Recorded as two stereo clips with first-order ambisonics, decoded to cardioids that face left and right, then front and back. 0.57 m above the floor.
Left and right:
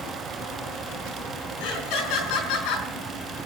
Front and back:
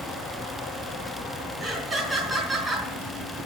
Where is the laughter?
90° left, 5 m.